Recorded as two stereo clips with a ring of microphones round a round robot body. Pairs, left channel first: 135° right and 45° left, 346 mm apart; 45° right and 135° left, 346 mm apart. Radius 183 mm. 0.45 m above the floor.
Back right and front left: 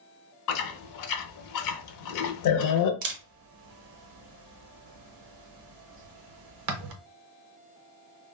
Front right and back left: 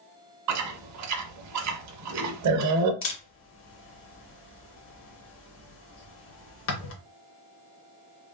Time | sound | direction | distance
0.5 | chewing | straight behind | 0.5 m
3.0 | a camera shutter | 10° left | 0.7 m